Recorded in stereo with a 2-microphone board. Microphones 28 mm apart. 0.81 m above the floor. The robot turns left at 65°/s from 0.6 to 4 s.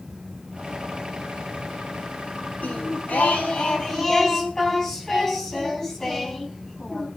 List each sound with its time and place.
2.6 s singing: 105° left, 4 m; by 7.1 s 15° left, 4 m